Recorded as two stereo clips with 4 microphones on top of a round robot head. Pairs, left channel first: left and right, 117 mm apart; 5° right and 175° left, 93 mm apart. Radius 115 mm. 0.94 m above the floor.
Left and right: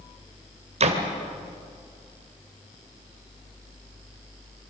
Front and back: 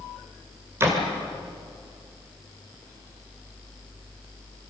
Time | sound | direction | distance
0.8 | a door slam | 115° right | 2.5 m